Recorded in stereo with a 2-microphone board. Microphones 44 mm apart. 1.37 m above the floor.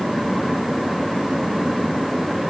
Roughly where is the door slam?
No door slam in this recording.